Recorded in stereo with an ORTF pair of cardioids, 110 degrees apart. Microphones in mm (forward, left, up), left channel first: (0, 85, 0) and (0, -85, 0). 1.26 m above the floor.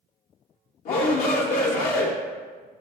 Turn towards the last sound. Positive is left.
turn(degrees=60)